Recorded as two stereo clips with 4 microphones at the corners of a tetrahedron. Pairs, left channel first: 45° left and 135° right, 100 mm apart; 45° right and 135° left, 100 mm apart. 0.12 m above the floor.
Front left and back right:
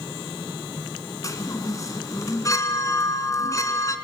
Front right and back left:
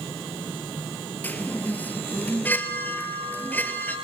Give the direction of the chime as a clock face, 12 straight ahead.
11 o'clock.